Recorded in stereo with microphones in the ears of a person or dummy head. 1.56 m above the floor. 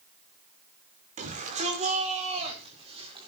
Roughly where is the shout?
Right.